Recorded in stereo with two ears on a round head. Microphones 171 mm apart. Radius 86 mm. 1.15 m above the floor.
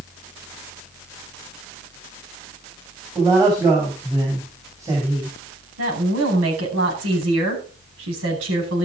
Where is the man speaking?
15° right (ahead or behind), 6.5 m.